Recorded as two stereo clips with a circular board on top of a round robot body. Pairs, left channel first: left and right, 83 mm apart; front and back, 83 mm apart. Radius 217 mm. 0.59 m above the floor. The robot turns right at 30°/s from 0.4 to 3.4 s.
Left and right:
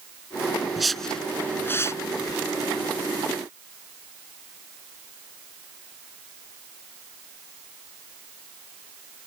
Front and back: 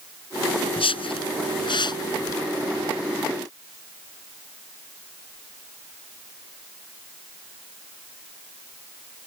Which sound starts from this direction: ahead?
A whoosh, at 0.8 s.